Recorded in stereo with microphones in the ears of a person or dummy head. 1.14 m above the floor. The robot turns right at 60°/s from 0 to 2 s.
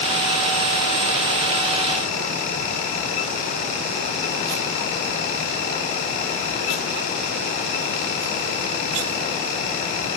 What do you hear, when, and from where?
Only background noise.